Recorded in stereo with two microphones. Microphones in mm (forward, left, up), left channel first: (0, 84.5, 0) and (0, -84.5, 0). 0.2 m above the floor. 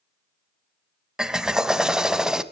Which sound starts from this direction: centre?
A drill, at 1.2 s.